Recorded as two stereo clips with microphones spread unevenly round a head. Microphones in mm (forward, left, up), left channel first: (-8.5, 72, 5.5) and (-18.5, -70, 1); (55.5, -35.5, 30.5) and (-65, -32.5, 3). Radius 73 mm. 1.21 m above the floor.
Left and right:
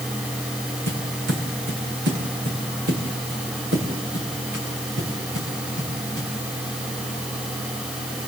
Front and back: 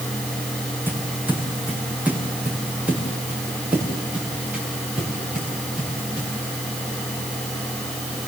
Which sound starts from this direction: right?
Footsteps, at 0.9 s.